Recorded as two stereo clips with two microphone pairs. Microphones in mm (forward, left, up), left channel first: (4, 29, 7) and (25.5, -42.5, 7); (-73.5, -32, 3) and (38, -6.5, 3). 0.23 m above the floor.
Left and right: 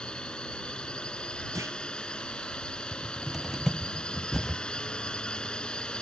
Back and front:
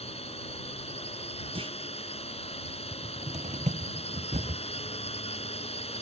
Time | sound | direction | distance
0.0 | a drone | 175° right | ?
1.6 | a clunk | 25° right | ?
2.9 | a cupboard door | 10° left | ?